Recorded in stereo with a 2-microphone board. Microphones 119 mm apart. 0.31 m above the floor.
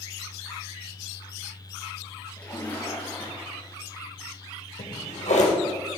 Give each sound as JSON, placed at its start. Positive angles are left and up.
{"t": 2.4, "sound": "a splash", "side_deg": 15, "distance_m": 5.5}
{"t": 4.8, "sound": "a drawer", "side_deg": 85, "distance_m": 4.5}